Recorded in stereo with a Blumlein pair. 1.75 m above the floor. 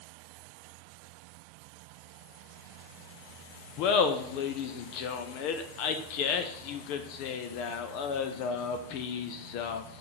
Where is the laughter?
45° left, 0.5 m.